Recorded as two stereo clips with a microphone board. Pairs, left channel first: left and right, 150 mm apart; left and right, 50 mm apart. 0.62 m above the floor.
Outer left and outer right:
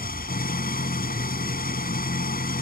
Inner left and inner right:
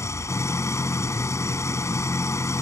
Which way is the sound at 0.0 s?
80° left.